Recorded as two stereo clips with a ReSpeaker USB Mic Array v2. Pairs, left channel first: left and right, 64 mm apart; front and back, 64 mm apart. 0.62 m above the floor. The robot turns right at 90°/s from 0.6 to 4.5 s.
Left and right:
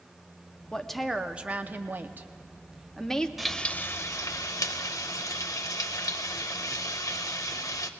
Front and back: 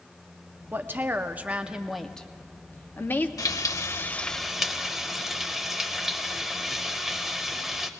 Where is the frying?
5° right, 0.6 m; by 7.9 s 95° left, 0.6 m.